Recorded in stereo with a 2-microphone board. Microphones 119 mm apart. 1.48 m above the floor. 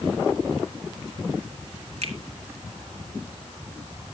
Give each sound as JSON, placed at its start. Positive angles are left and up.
{"t": 2.0, "sound": "a finger snap", "side_deg": -65, "distance_m": 2.0}